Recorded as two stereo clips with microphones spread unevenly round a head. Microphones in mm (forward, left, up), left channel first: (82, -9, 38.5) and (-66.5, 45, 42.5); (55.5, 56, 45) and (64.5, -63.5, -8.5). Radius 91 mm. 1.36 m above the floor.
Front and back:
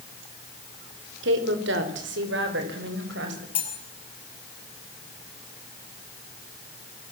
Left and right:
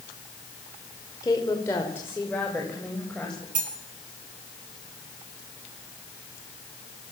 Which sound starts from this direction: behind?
A woman speaking, at 1.2 s.